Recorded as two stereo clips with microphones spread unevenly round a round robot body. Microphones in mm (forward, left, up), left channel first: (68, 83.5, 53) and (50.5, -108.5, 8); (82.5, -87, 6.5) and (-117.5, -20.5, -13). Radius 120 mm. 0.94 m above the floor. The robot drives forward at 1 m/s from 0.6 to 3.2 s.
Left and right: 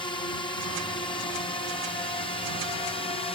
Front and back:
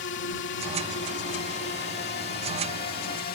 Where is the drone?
15° left; by 3.4 s 20° left.